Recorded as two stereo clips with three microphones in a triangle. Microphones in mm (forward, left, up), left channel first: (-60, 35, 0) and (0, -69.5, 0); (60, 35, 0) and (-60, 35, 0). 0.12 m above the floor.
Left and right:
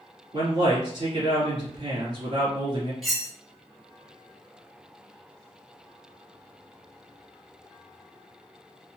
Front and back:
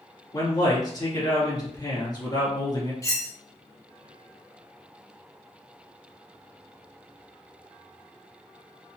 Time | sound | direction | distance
0.3 | a man speaking | 40° right | 1.5 m
3.0 | cutlery clinking | 30° left | 0.9 m